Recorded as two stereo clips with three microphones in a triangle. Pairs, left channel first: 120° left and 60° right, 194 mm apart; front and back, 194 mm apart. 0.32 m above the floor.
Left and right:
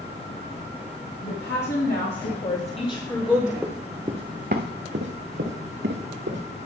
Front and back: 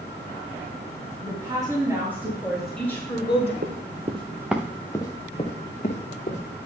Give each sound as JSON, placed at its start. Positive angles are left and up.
{"t": 1.2, "sound": "a woman speaking", "azimuth_deg": 115, "distance_m": 3.0}
{"t": 3.6, "sound": "running footsteps", "azimuth_deg": -145, "distance_m": 1.5}